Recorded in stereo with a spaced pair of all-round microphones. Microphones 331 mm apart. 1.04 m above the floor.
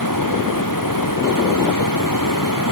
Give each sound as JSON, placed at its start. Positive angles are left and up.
{"t": 0.0, "sound": "running water", "side_deg": 75}